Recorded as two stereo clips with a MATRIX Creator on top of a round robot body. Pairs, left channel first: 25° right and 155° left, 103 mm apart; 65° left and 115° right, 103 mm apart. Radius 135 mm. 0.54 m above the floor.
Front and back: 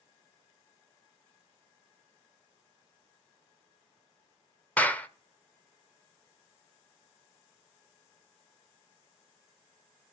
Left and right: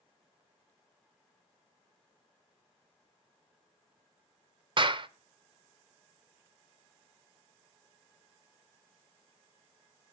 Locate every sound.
4.8 s a clap: 95° right, 0.9 m